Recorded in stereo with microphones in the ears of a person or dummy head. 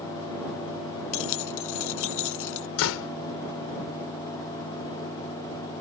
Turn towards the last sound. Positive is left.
turn(degrees=80)